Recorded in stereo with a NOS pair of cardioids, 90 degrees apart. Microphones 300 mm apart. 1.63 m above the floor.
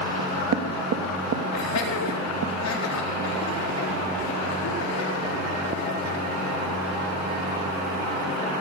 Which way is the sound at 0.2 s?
55° right.